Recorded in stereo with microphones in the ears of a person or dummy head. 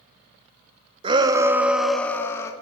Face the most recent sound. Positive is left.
turn(degrees=15)  # may be behind; listen again after turning